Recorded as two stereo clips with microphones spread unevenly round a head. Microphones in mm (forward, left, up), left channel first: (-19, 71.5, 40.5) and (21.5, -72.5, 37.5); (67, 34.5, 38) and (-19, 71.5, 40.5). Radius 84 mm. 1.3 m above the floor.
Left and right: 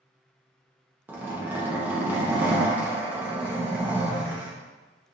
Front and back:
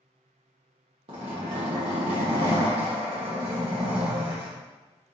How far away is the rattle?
No rattle in this recording.